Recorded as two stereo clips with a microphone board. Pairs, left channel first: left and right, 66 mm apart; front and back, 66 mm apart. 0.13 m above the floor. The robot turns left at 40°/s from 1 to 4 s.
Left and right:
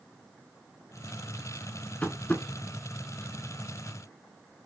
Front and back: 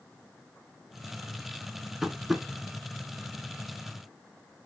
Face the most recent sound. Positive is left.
turn(degrees=30)